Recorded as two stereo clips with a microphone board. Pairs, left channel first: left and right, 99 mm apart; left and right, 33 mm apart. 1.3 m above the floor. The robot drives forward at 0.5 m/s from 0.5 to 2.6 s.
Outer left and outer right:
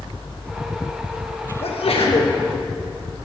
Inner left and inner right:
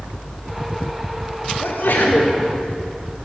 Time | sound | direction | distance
1.6 | a sneeze | 80° left | 1.5 m